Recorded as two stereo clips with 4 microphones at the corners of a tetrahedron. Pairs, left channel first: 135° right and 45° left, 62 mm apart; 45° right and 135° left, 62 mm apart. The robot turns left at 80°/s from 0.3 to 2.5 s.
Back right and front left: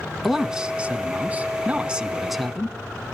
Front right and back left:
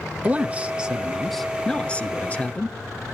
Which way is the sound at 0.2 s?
125° left.